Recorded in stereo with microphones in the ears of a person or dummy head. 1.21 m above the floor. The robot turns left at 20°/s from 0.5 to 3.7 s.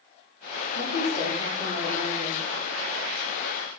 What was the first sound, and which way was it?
A woman speaking, 60° left.